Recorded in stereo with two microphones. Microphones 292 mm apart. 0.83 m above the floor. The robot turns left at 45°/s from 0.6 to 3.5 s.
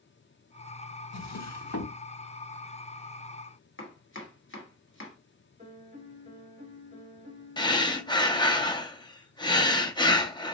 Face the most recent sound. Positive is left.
turn(degrees=15)  # may be behind; listen again after turning